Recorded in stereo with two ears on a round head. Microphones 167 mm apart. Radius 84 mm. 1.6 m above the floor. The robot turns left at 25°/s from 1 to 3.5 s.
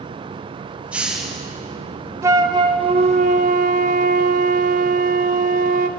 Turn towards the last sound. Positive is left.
turn(degrees=-50)